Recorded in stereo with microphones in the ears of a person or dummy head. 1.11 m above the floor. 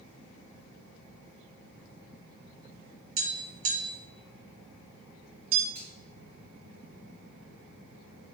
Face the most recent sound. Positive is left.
turn(degrees=-30)  # may be behind; listen again after turning